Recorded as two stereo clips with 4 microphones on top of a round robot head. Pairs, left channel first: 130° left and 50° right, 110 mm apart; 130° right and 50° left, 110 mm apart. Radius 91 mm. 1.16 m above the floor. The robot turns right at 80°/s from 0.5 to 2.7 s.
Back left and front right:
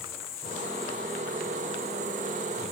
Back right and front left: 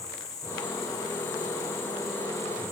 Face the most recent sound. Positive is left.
turn(degrees=-15)